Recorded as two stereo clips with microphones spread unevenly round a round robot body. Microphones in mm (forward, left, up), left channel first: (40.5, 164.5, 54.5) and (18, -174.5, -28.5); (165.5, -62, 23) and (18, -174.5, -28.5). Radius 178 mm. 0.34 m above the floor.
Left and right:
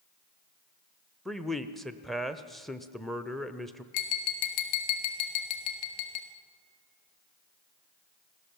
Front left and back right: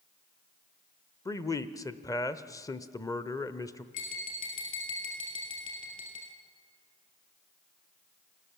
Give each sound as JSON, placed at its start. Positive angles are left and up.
{"t": 1.2, "sound": "a man speaking", "azimuth_deg": -45, "distance_m": 0.9}
{"t": 3.9, "sound": "tapping", "azimuth_deg": 90, "distance_m": 2.5}